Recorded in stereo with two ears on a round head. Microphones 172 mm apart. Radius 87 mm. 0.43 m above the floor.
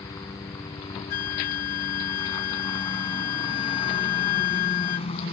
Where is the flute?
50° left (ahead or behind).